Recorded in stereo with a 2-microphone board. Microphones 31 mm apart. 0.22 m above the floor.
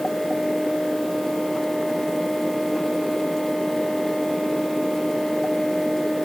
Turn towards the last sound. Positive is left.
No sound to turn to.